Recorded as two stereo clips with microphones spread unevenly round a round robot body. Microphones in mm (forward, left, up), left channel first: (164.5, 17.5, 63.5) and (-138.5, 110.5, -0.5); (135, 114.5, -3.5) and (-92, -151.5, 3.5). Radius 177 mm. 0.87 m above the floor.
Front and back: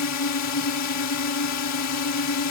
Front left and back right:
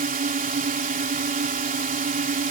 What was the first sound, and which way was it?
A drone, 65° right.